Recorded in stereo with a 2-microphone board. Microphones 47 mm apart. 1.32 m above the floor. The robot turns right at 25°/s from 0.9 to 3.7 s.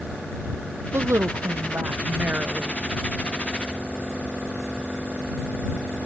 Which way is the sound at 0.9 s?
80° right.